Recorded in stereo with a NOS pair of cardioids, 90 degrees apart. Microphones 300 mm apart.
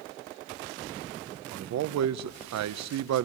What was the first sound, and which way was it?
A man speaking, 65° right.